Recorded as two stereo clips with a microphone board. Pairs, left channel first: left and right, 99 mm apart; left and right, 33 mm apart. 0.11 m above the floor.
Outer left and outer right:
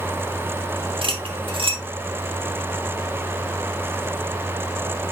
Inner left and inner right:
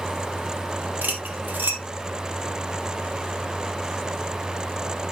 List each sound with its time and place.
1.0 s cutlery clinking: 60° right (ahead or behind), 1.9 m